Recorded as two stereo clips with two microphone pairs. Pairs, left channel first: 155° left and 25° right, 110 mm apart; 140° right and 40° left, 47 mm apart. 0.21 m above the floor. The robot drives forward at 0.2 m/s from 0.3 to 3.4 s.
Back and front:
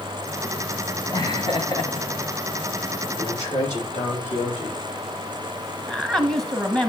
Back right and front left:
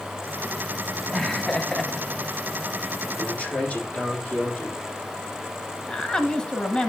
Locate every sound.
1.1 s laughter: 150° left, 1.2 m; by 2.6 s 155° left, 1.4 m
3.2 s a man speaking: 165° left, 7.5 m
5.9 s a woman speaking: 130° right, 1.0 m